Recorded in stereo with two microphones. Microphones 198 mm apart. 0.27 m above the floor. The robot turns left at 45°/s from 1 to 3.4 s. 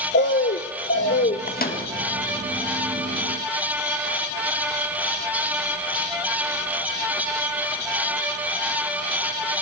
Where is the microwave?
45° left (ahead or behind), 1.7 m; by 1.8 s 55° left (ahead or behind), 1.7 m.